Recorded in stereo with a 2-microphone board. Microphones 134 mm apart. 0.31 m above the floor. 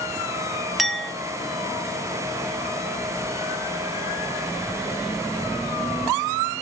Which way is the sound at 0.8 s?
Centre (ahead or behind).